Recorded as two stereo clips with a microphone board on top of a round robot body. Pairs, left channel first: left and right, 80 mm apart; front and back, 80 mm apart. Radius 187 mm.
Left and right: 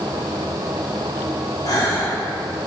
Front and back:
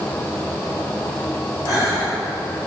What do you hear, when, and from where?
1.6 s a gasp: 45° left, 3.5 m